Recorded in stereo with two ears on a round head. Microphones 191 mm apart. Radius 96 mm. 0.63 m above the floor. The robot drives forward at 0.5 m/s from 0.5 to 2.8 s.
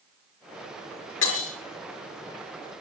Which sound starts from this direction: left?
Breaking glass, at 1.2 s.